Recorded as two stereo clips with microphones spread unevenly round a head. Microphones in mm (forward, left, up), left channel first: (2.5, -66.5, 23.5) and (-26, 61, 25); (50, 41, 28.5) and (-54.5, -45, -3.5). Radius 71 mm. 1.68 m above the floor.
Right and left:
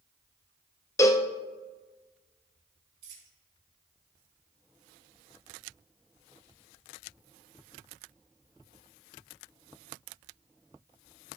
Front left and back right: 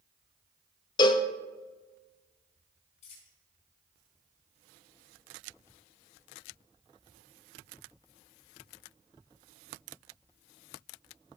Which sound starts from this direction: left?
A dropped coin, at 3.0 s.